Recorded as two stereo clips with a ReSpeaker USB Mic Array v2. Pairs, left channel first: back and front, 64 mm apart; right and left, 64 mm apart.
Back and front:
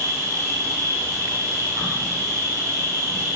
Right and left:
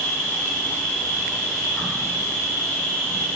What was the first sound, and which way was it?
An insect, 20° right.